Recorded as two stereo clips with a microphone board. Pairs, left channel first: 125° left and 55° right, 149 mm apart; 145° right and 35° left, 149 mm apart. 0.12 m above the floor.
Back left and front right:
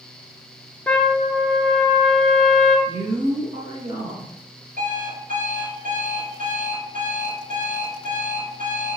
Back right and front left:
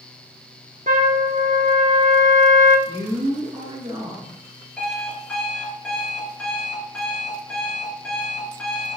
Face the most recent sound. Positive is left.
turn(degrees=-60)